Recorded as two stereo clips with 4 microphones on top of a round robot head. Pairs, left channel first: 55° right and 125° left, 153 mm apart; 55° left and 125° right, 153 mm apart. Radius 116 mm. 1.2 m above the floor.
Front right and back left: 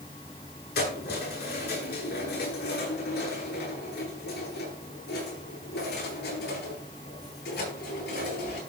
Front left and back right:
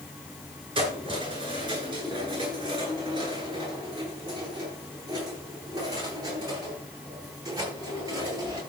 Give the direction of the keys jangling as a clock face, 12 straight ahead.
2 o'clock.